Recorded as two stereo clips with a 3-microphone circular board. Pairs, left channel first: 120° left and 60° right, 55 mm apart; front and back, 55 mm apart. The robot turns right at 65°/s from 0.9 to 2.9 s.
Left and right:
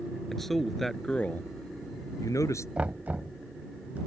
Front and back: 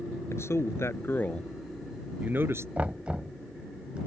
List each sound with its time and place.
0.3 s a man speaking: 30° left; by 2.7 s 145° left
2.8 s knocking: 125° right; by 4.0 s 115° right